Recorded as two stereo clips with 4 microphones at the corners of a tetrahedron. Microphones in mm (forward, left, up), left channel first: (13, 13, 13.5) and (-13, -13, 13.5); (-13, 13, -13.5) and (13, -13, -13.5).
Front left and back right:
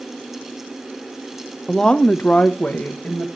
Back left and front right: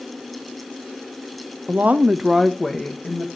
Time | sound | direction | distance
1.7 | a woman speaking | 30° right | 1.1 m